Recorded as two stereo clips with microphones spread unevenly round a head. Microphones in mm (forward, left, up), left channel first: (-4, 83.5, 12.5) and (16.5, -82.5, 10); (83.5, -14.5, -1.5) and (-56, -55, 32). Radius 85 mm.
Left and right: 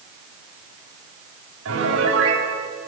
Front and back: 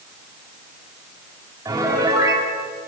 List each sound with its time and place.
1.6 s a piano: 90° right, 7.5 m